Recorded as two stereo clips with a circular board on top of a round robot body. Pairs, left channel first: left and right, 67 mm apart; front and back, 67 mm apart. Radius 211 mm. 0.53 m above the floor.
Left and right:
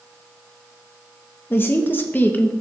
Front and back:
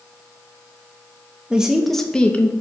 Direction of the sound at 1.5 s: 115° left.